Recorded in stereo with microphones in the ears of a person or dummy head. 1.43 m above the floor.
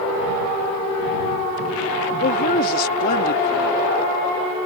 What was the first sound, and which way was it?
A woman speaking, 55° left (ahead or behind).